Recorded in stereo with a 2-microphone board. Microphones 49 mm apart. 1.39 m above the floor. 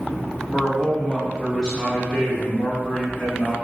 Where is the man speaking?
20° left (ahead or behind), 1.7 m.